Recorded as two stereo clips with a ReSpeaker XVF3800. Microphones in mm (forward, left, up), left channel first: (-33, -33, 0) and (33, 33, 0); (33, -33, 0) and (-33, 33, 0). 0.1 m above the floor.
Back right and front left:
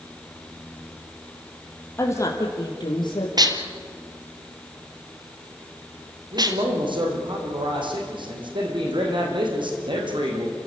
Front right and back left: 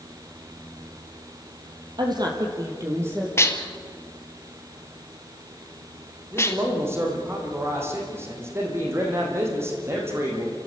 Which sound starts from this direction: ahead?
Dishes clattering, at 3.4 s.